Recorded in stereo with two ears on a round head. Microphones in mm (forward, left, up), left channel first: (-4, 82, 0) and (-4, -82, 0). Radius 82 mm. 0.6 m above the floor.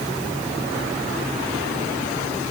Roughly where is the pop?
No pop in this recording.